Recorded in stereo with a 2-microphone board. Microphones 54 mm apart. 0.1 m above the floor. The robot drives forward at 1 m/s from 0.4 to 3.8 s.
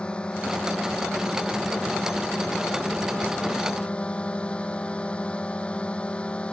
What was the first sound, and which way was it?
A drone, 20° left (ahead or behind).